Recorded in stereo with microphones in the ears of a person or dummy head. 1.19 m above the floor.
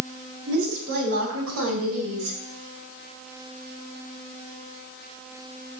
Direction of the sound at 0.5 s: 60° right (ahead or behind).